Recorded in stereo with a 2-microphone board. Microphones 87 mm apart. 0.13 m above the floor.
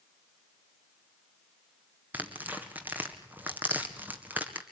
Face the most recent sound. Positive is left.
turn(degrees=-20)  # may be behind; listen again after turning